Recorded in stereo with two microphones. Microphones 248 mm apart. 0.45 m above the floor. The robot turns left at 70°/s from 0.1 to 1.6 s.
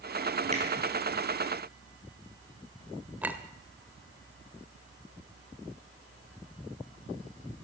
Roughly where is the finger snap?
Right.